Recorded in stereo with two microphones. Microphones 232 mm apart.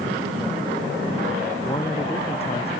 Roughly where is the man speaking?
Left.